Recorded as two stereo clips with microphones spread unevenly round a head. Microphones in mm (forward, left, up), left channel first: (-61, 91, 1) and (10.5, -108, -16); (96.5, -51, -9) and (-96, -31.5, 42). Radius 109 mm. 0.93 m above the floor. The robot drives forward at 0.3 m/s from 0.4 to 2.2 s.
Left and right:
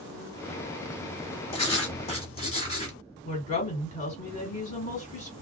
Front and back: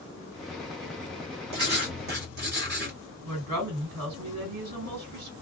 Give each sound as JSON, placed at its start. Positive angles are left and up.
{"t": 1.5, "sound": "writing", "azimuth_deg": 165, "distance_m": 1.3}
{"t": 3.2, "sound": "a woman speaking", "azimuth_deg": 170, "distance_m": 2.0}